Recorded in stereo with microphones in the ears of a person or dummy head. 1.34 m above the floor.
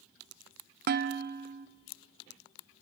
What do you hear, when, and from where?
0.9 s dishes clattering: 45° right (ahead or behind), 0.5 m